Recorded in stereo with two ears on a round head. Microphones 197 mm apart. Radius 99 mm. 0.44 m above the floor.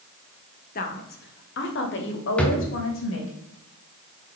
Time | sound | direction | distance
0.8 | a woman speaking | 40° left (ahead or behind) | 1.2 m
2.4 | a drawer | 5° left (ahead or behind) | 1.3 m